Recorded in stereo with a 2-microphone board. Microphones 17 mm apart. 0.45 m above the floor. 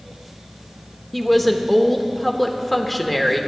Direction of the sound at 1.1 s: 5° left (ahead or behind).